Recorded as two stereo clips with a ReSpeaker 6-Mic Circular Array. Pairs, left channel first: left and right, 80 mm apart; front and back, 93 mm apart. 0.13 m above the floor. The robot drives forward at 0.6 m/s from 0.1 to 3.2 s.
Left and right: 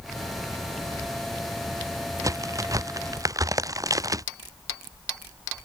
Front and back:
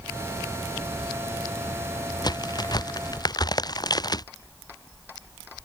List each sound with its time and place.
2.2 s a crack: 45° right